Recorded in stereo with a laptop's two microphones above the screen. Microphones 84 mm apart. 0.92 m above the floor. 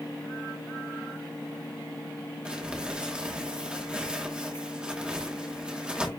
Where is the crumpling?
10° right (ahead or behind), 1.4 m.